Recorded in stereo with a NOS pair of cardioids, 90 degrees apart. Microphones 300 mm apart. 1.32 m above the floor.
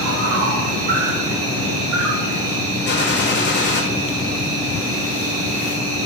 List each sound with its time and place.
0.0 s an insect: 50° right, 0.7 m
2.9 s a gunshot: 40° left, 0.7 m